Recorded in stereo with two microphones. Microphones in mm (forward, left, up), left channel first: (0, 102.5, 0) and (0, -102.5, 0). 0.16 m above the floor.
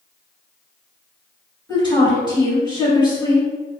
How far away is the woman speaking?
About 1.9 m.